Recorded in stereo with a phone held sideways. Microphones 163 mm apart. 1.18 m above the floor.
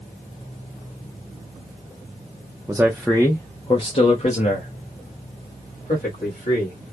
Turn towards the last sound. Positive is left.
turn(degrees=70)  # may be behind; listen again after turning